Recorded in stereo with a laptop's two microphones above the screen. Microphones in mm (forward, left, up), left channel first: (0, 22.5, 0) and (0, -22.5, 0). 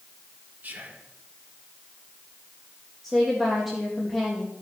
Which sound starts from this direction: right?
Whispering, at 0.6 s.